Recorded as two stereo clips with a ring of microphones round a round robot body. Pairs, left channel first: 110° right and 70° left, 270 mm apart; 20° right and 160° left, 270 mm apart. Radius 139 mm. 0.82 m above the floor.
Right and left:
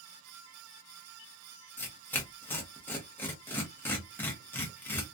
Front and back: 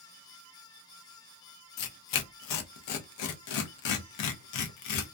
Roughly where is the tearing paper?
Ahead right.